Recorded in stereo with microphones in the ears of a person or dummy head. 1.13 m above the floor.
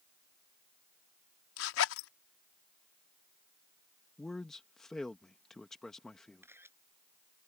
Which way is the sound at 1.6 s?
85° left.